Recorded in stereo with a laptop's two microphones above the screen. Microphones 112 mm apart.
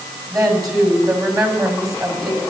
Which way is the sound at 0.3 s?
35° right (ahead or behind).